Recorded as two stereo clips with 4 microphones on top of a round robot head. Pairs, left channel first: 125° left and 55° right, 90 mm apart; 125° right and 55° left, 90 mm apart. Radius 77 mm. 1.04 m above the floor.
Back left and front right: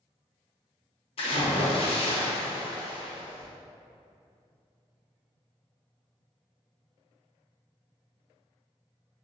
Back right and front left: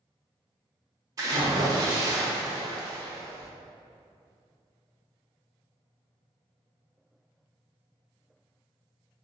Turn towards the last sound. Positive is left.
turn(degrees=105)